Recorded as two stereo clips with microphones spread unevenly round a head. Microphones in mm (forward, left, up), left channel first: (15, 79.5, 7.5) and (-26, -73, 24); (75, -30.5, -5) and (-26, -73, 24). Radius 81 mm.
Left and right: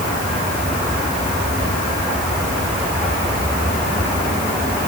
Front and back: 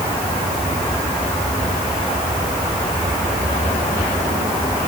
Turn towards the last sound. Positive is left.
No sound to turn to.